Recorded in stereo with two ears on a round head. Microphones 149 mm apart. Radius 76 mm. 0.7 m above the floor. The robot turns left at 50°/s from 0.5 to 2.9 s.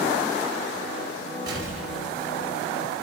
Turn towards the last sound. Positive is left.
turn(degrees=135)